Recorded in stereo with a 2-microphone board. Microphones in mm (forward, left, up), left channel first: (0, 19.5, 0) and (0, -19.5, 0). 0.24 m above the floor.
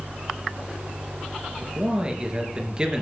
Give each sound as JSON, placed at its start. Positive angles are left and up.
{"t": 1.6, "sound": "a man speaking", "side_deg": -20, "distance_m": 4.0}